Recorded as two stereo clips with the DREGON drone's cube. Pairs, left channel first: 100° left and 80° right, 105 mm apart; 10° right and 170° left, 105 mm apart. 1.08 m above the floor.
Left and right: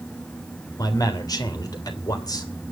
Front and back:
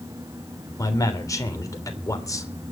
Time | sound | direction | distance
0.8 | a man speaking | 45° left | 3 m